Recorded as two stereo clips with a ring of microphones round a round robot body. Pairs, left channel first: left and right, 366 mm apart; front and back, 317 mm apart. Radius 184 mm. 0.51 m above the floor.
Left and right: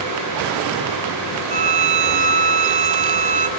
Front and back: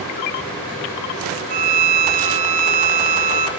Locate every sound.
1.5 s a violin: 160° right, 1.4 m